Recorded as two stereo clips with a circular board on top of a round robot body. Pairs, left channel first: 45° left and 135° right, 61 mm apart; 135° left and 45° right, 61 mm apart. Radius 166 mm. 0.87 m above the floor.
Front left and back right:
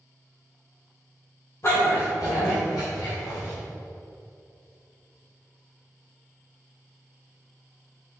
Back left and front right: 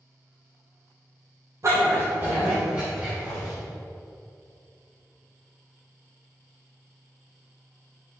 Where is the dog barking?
Straight ahead, 1.7 m; by 3.5 s 35° left, 3 m.